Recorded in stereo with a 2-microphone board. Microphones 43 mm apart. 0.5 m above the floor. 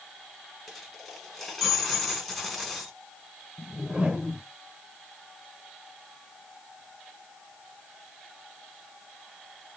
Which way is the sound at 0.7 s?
5° left (ahead or behind).